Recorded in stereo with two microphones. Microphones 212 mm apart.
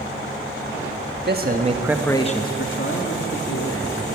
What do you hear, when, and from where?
1.2 s a man speaking: 50° right (ahead or behind), 1.4 m; by 4.2 s 80° left, 3 m